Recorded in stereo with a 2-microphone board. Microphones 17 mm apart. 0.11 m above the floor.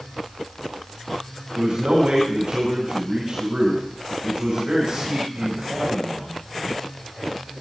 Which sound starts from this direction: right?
A man speaking, at 1.6 s.